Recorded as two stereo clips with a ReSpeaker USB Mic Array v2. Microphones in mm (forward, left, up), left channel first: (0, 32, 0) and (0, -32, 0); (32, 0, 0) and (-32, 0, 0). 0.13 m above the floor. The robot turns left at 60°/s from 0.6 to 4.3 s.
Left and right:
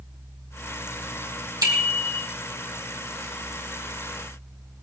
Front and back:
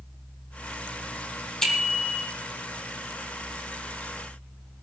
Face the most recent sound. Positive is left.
turn(degrees=120)